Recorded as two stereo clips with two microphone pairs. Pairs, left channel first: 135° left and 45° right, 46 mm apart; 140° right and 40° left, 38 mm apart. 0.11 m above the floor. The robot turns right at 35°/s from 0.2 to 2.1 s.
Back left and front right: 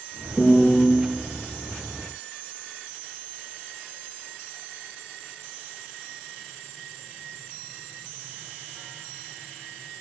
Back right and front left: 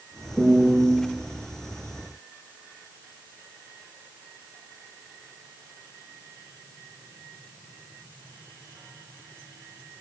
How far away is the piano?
About 0.9 m.